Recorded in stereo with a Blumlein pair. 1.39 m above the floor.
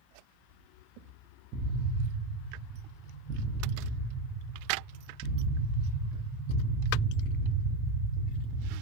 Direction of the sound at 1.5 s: 25° right.